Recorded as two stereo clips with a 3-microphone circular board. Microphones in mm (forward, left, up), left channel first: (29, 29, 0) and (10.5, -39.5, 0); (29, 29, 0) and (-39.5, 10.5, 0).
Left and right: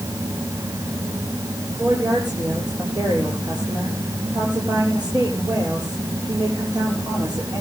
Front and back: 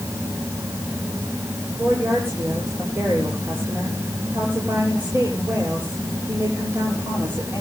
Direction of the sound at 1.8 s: 105° right.